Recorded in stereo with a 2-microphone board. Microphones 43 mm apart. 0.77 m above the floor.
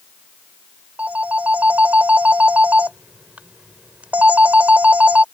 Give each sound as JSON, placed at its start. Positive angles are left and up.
{"t": 1.0, "sound": "a phone ringing", "side_deg": -35}